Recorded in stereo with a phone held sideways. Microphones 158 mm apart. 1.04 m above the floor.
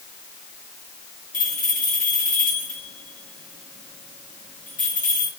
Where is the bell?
55° left (ahead or behind), 4.5 m.